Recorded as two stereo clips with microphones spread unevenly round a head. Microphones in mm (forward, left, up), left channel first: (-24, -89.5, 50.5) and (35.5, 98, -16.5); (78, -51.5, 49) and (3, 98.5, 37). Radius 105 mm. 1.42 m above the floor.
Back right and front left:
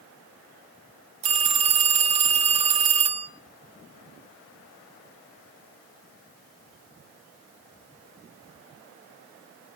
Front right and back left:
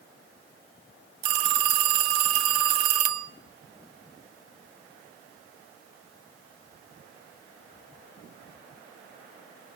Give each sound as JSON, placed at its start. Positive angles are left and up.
{"t": 1.2, "sound": "a phone ringing", "azimuth_deg": 140, "distance_m": 1.1}